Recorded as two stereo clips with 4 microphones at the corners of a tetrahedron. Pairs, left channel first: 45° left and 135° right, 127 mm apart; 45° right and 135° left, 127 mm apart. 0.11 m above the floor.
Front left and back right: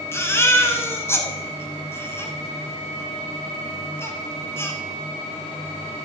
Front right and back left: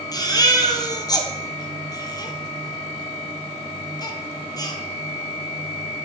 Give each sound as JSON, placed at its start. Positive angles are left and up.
{"t": 0.1, "sound": "a baby crying", "azimuth_deg": -15, "distance_m": 1.3}